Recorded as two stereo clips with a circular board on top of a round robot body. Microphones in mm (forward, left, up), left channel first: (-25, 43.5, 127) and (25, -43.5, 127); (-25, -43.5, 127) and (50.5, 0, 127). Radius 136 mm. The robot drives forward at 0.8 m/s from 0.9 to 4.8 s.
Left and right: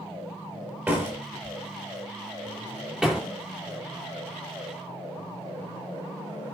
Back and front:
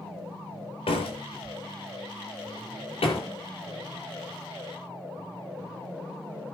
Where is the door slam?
130° right, 6.5 m; by 3.3 s 140° right, 7.5 m.